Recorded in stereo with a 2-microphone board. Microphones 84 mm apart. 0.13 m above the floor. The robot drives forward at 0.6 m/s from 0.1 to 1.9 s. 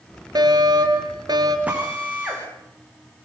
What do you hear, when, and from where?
0.3 s a fire alarm: 55° right (ahead or behind), 4 m
1.7 s a drill: 15° right (ahead or behind), 8 m